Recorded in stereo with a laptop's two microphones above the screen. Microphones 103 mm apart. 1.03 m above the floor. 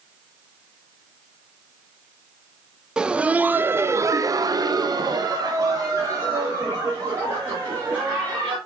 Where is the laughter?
10° right (ahead or behind), 0.9 m; by 8.6 s 25° right (ahead or behind), 2.5 m.